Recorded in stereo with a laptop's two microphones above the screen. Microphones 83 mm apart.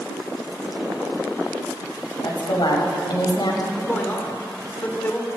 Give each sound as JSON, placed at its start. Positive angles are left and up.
{"t": 2.2, "sound": "a woman speaking", "side_deg": 65, "distance_m": 5.5}
{"t": 3.7, "sound": "a man speaking", "side_deg": 20, "distance_m": 2.5}